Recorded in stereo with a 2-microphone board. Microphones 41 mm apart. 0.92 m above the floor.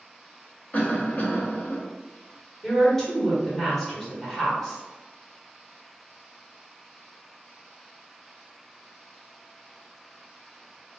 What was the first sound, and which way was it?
A cough, 40° left (ahead or behind).